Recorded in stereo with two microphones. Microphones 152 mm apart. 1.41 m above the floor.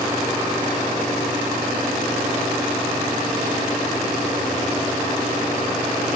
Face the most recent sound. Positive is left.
No sound to turn to.